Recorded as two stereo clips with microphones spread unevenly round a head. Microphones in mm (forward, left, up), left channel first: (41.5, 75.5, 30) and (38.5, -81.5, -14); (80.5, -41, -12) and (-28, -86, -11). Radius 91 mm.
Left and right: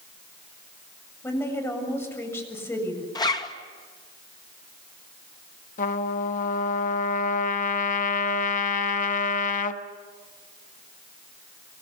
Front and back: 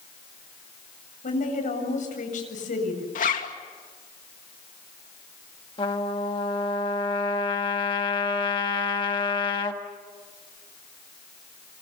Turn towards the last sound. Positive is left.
turn(degrees=80)